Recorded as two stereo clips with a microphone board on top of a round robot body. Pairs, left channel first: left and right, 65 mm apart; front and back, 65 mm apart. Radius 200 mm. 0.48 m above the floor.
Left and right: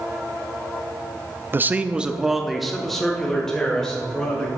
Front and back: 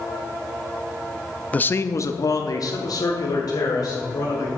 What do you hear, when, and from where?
1.5 s a man speaking: 55° right, 0.8 m; by 4.5 s 10° left, 3.5 m